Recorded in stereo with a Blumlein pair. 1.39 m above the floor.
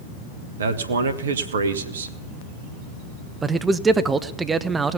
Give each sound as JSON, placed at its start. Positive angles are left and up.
{"t": 0.6, "sound": "a man speaking", "azimuth_deg": -65, "distance_m": 1.3}
{"t": 3.4, "sound": "a man speaking", "azimuth_deg": -15, "distance_m": 0.8}